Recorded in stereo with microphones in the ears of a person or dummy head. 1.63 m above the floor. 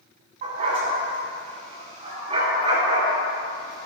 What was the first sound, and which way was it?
A dog barking, 45° right (ahead or behind).